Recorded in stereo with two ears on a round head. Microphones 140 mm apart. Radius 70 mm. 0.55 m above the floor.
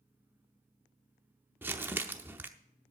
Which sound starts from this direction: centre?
Crumpling, at 1.6 s.